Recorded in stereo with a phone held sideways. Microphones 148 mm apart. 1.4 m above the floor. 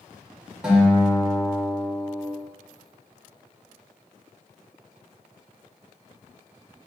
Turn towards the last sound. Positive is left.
turn(degrees=-5)  # may be behind; listen again after turning